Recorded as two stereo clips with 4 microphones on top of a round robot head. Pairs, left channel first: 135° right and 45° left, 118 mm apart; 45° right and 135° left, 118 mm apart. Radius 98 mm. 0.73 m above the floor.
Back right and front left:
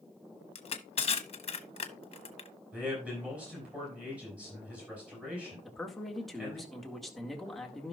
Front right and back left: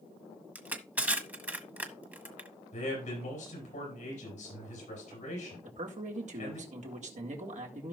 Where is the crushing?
155° right, 1.3 m.